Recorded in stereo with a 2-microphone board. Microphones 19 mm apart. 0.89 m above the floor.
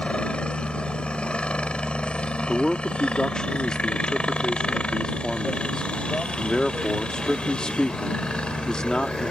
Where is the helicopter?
70° left (ahead or behind); by 9.3 s 65° left (ahead or behind).